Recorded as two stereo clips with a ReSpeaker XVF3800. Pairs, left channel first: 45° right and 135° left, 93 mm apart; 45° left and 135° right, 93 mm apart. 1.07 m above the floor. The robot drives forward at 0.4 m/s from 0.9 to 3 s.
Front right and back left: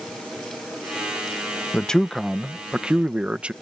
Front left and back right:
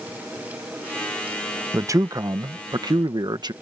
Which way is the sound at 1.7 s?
115° right.